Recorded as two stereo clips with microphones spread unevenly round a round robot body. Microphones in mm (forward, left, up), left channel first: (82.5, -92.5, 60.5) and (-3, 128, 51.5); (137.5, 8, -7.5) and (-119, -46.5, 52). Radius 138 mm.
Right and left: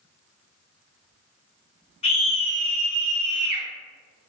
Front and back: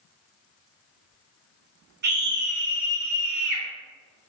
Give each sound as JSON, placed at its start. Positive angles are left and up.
{"t": 2.0, "sound": "a scream", "azimuth_deg": -120, "distance_m": 1.2}